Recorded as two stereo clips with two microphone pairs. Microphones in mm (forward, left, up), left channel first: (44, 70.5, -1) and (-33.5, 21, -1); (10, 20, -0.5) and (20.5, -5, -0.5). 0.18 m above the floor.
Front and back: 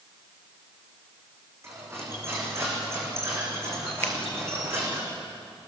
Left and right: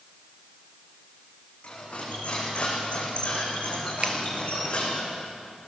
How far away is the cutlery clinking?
About 6.5 m.